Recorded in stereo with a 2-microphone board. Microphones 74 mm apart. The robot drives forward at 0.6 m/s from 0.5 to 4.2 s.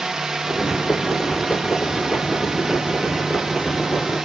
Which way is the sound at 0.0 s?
10° right (ahead or behind).